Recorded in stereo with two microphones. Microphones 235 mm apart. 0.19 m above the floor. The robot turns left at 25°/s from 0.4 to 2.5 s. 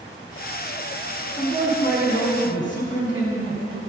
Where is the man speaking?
35° left (ahead or behind), 1.9 m.